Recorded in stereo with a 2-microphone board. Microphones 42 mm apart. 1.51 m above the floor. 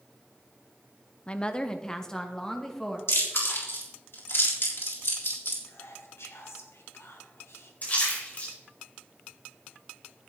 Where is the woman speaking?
25° left (ahead or behind), 0.6 m; by 3.0 s 10° left (ahead or behind), 1.9 m.